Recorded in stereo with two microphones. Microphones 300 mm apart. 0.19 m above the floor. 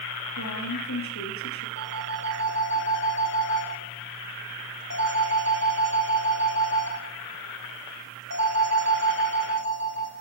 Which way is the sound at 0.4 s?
70° left (ahead or behind).